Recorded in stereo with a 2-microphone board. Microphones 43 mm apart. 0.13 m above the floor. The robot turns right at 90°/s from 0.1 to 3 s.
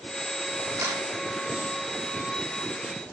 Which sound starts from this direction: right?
A camera shutter, at 0.8 s.